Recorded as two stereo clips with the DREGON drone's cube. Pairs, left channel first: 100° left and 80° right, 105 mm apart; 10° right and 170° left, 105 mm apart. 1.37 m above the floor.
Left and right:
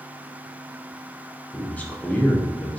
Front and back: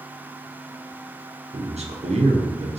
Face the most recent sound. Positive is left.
turn(degrees=175)